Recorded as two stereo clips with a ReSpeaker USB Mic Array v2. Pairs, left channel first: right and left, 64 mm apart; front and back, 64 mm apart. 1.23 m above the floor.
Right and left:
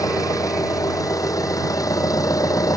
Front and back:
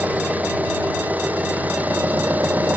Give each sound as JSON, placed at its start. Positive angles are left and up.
{"t": 0.0, "sound": "an engine running", "azimuth_deg": -115}